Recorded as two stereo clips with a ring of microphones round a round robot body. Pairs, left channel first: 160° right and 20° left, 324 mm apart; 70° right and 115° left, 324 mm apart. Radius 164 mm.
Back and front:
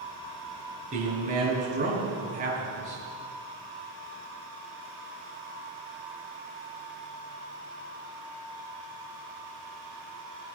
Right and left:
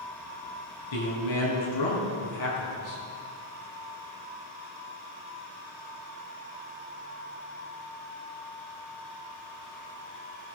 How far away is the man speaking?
About 4.5 m.